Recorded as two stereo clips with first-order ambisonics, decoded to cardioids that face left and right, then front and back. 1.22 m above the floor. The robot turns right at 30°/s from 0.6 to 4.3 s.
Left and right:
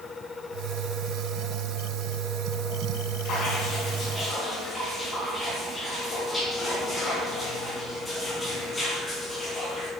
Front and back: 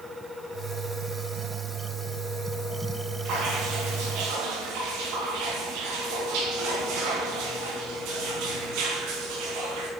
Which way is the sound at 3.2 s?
140° left.